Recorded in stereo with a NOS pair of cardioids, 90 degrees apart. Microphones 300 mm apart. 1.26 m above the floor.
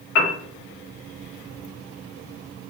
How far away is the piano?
About 1.0 m.